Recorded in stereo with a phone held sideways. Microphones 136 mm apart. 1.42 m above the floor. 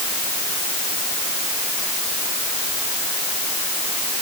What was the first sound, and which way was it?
Only background noise.